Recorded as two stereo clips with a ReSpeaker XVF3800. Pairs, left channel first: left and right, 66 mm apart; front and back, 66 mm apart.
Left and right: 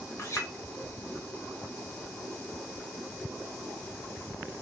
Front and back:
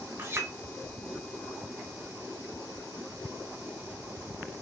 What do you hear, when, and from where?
0.2 s a clink: 130° left, 0.7 m